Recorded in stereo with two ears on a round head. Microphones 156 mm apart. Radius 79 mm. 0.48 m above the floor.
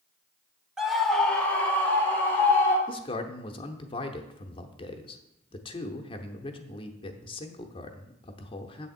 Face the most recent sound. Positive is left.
turn(degrees=30)  # may be behind; listen again after turning